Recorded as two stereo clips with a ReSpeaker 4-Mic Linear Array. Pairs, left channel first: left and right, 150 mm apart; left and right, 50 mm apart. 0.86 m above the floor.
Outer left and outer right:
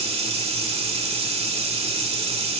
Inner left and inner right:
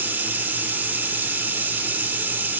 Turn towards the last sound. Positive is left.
turn(degrees=-40)  # may be behind; listen again after turning